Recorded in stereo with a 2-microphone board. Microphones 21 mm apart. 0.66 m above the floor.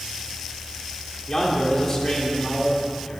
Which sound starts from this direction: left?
A man speaking, at 1.3 s.